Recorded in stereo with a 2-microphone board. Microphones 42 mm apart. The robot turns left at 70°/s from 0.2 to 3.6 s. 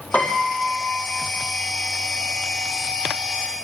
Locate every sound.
0.1 s a piano: 140° left, 4.5 m; by 1.3 s 60° left, 4.5 m